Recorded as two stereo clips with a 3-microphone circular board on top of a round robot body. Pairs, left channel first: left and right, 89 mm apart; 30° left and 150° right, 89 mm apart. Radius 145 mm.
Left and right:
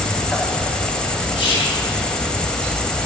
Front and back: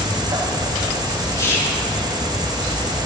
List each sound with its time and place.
0.0 s an insect: 170° left, 1.2 m
1.4 s whispering: 85° left, 2.5 m